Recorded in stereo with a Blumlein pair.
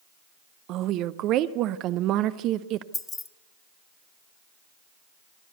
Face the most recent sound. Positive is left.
turn(degrees=15)